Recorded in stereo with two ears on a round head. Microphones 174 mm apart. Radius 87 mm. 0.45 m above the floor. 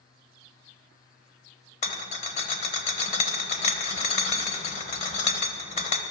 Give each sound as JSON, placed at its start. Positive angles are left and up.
{"t": 1.8, "sound": "a rattle", "side_deg": 35, "distance_m": 1.3}